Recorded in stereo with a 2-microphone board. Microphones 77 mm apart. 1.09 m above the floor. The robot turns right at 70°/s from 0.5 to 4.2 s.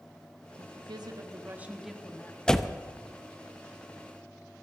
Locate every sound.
0.6 s a woman speaking: 95° right, 1.6 m; by 2.4 s 30° left, 1.6 m
2.5 s a door slam: 10° left (ahead or behind), 0.6 m; by 2.8 s 10° right (ahead or behind), 0.6 m